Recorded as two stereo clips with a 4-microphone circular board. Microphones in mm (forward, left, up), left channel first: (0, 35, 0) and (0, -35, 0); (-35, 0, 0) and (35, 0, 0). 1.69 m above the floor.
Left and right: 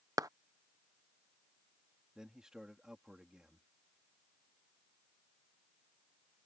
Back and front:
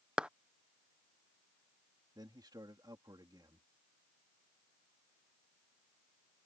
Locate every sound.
0.2 s a clap: 75° right
2.1 s a man speaking: 10° right